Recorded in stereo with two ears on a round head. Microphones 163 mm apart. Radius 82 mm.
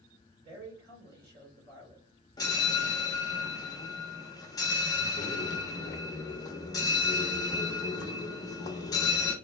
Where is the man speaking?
55° right (ahead or behind), 2.5 m.